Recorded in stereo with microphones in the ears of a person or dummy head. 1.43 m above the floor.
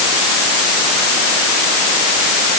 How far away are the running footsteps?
No running footsteps in this recording.